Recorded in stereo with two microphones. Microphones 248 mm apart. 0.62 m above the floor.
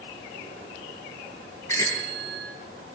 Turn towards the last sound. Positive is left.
turn(degrees=10)  # may be behind; listen again after turning